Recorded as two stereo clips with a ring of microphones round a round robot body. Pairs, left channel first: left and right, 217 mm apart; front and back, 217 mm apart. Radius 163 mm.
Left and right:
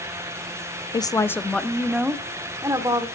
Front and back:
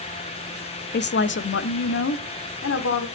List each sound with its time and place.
0.9 s a woman speaking: 25° left, 1.1 m; by 3.1 s 20° right, 2 m